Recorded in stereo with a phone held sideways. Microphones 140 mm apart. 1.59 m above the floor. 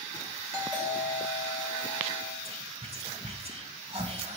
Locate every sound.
0.5 s a doorbell: 25° right (ahead or behind), 5.5 m
2.5 s whispering: 45° right (ahead or behind), 1.4 m